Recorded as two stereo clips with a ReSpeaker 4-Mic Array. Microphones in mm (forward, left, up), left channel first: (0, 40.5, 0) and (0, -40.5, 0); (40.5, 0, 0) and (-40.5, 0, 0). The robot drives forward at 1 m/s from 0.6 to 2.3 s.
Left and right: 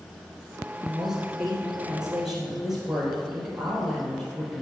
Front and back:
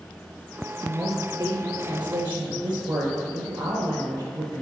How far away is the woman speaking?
About 2 m.